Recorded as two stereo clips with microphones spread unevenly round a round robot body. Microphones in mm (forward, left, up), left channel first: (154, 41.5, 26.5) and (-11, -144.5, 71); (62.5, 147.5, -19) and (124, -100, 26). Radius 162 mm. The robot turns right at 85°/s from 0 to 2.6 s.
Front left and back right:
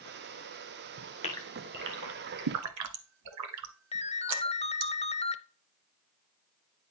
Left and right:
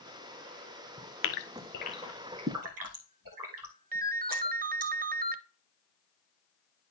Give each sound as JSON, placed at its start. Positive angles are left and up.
{"t": 1.2, "sound": "a gasp", "azimuth_deg": 120, "distance_m": 0.8}
{"t": 3.9, "sound": "a ringtone", "azimuth_deg": -15, "distance_m": 0.6}